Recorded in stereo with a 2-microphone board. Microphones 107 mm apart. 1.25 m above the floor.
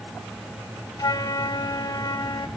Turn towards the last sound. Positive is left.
turn(degrees=40)  # may be behind; listen again after turning